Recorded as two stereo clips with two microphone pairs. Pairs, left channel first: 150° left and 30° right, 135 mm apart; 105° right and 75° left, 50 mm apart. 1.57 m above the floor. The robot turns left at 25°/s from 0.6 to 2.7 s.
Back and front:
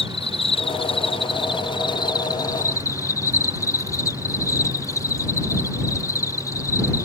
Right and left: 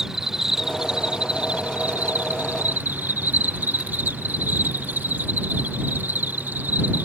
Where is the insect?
150° left; by 7.1 s 100° left.